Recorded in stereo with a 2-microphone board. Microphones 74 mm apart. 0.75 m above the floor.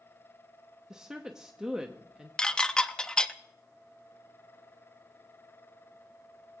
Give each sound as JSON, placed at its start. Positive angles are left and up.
{"t": 0.9, "sound": "a woman speaking", "side_deg": -10, "distance_m": 0.8}
{"t": 2.4, "sound": "dishes clattering", "side_deg": 10, "distance_m": 0.5}